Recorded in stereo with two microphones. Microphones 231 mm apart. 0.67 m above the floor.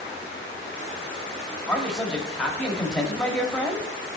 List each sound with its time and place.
1.7 s a man speaking: centre (ahead or behind), 1.5 m